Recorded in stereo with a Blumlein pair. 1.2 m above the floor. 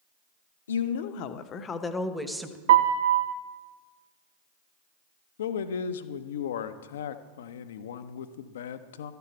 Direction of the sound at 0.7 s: 65° left.